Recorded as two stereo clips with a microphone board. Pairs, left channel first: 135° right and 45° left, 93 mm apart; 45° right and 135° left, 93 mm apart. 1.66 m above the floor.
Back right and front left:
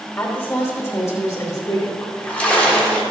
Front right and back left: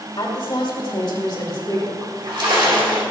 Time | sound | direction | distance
0.2 | a woman speaking | 70° right | 2.5 m
2.0 | a splash | 150° left | 1.9 m